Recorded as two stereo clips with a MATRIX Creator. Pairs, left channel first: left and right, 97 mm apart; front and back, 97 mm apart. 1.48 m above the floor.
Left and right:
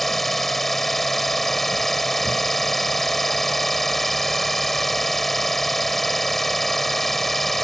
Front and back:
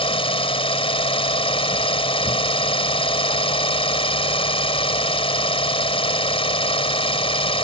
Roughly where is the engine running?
Ahead.